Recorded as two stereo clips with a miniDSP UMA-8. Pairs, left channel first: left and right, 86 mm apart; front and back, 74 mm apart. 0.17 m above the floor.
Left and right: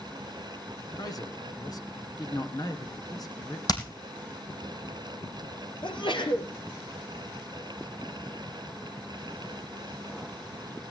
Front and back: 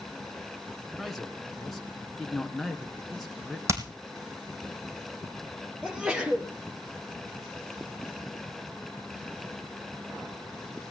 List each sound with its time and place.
1.0 s a man speaking: 85° left, 2.5 m
3.7 s hammering: 130° left, 3 m
5.8 s a sneeze: 100° left, 3.5 m